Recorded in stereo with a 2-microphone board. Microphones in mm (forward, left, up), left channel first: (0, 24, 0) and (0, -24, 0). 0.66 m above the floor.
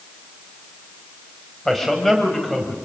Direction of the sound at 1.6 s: 5° left (ahead or behind).